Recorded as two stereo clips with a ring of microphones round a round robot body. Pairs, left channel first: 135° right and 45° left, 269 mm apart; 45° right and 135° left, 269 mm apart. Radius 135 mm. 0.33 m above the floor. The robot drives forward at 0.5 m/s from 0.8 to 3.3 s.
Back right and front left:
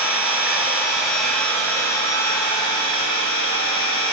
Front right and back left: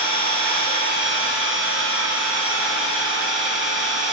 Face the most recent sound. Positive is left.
turn(degrees=160)